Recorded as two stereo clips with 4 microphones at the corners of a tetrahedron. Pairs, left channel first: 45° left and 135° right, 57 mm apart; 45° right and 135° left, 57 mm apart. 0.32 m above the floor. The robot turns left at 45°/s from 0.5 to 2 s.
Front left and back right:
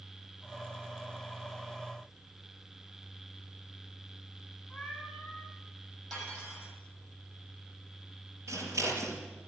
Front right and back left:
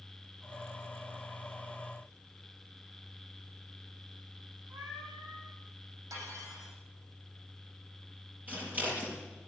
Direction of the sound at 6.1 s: 125° left.